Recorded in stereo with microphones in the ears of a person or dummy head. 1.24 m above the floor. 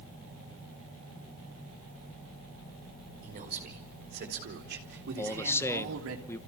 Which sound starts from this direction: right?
A man speaking, at 3.2 s.